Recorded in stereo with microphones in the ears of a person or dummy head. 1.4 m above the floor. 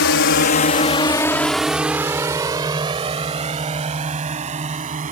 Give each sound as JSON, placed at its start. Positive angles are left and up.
{"t": 0.0, "sound": "a drone", "side_deg": 70}